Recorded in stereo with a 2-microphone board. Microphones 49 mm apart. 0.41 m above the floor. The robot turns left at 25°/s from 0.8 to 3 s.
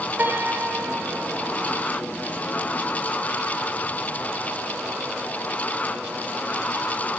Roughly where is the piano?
Right.